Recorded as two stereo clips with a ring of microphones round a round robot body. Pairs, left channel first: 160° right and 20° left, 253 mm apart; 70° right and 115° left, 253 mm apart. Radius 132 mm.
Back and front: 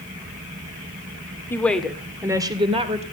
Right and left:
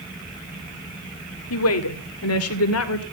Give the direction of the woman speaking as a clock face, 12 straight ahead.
3 o'clock.